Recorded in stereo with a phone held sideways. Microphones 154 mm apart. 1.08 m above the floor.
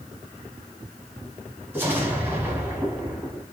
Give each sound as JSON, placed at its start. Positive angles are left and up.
{"t": 1.7, "sound": "an explosion", "side_deg": -15, "distance_m": 1.3}